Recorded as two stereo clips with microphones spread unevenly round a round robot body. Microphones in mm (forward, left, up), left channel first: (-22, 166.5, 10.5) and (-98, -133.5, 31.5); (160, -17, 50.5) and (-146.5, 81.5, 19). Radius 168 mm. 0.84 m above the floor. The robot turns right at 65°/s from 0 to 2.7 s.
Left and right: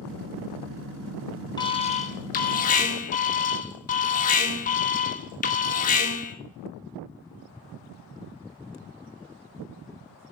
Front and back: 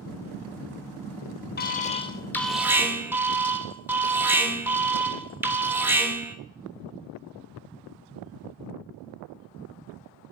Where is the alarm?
20° left, 0.6 m; by 6.3 s 95° left, 0.6 m.